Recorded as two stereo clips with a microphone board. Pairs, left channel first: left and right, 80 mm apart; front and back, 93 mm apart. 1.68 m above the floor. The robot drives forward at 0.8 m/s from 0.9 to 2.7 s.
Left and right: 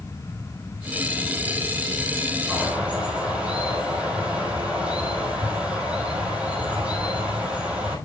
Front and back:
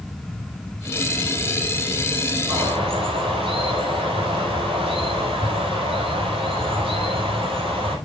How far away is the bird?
About 5 m.